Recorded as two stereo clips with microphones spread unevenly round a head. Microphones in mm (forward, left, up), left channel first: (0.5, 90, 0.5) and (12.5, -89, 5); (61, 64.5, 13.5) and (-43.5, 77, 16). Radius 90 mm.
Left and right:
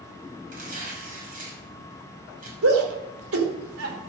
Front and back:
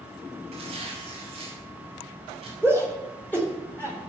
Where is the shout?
85° right, 4 m.